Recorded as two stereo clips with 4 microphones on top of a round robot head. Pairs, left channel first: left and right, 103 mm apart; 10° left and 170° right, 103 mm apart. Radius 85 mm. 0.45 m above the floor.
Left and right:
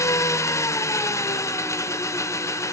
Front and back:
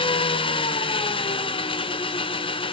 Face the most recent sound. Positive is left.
turn(degrees=30)